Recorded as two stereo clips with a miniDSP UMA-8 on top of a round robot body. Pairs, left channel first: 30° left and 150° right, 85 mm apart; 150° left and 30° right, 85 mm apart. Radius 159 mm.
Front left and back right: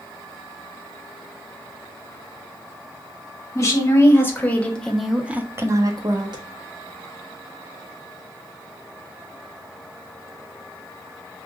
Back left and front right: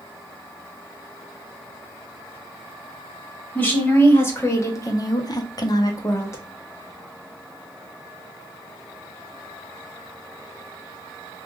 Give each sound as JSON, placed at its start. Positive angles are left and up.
{"t": 3.5, "sound": "a woman speaking", "azimuth_deg": 85, "distance_m": 1.7}